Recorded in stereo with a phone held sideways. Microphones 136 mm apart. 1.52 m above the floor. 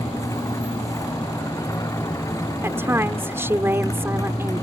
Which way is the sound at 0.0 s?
25° left (ahead or behind).